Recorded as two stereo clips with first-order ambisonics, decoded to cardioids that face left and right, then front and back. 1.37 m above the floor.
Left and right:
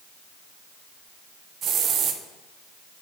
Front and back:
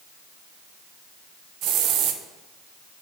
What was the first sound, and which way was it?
A hiss, 145° right.